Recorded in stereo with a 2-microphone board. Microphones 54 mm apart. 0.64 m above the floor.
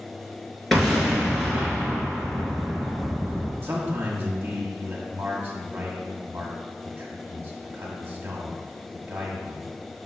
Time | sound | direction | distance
0.7 | an explosion | 5° left (ahead or behind) | 2.5 m
3.6 | a man speaking | 40° right (ahead or behind) | 1.5 m